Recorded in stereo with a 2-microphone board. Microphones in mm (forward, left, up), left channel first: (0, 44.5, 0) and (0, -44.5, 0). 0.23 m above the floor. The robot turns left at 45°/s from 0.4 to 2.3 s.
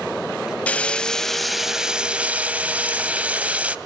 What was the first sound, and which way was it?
Frying, 15° left (ahead or behind).